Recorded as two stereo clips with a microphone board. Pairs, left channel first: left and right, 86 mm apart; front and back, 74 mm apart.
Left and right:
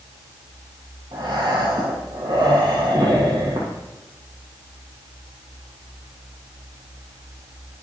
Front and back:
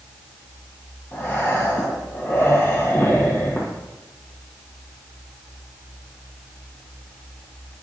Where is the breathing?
60° right, 1.9 m.